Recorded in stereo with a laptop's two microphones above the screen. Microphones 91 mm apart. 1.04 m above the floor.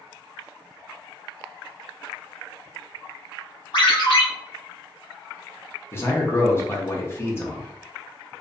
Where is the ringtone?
60° left (ahead or behind), 0.9 m.